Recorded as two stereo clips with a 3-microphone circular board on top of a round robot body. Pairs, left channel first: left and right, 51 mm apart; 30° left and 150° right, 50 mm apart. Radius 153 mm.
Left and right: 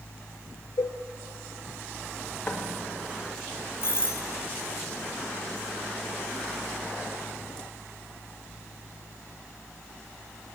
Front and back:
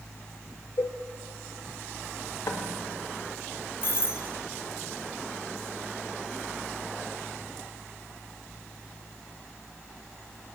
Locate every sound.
0.8 s a cowbell: 75° left, 0.5 m
2.5 s knocking: 30° left, 1.6 m
3.8 s a doorbell: 65° left, 2 m